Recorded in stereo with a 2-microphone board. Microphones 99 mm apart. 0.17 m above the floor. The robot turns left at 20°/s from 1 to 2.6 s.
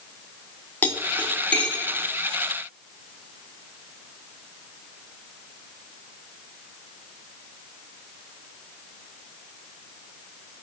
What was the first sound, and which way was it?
Cutlery clinking, 15° left (ahead or behind).